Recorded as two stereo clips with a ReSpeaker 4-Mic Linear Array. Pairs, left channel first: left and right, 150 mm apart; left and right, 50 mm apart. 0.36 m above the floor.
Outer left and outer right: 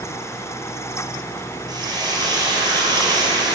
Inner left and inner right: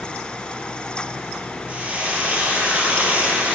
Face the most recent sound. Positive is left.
turn(degrees=-25)  # may be behind; listen again after turning